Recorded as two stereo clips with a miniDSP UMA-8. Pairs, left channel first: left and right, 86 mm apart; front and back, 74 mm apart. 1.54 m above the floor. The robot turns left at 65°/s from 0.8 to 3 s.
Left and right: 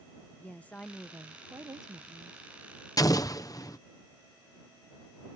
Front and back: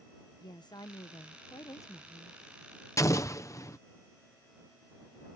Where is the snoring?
I don't hear snoring.